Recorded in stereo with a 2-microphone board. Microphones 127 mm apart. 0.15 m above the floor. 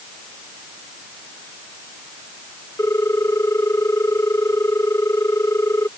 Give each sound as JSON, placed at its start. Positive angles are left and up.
{"t": 2.8, "sound": "a ringtone", "side_deg": 20}